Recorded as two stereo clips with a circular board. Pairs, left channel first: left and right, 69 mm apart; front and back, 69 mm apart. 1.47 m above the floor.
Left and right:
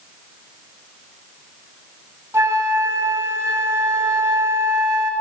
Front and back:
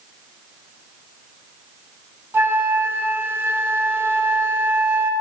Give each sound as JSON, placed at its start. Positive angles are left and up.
{"t": 2.3, "sound": "a flute", "azimuth_deg": -135, "distance_m": 1.7}